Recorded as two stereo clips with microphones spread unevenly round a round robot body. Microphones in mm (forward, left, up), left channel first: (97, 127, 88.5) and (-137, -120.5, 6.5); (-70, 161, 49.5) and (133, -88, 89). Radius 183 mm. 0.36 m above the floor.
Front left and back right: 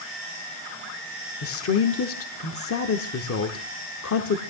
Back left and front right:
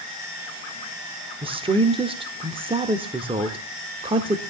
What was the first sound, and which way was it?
A woman speaking, 20° left.